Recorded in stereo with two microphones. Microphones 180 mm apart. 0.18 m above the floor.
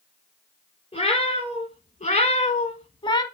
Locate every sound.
0.9 s a cat meowing: 35° left (ahead or behind), 1.2 m; by 3.2 s 25° left (ahead or behind), 0.5 m